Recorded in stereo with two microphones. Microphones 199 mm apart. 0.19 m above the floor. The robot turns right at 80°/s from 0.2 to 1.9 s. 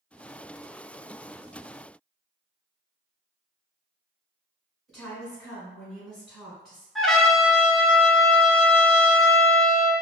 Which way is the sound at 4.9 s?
Centre (ahead or behind).